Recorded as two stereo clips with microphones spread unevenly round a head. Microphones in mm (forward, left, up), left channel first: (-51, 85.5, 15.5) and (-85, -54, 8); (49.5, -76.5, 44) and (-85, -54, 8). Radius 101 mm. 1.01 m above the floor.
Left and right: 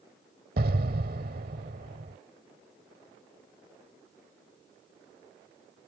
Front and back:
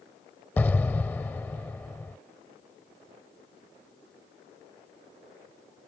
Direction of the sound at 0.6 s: 75° right.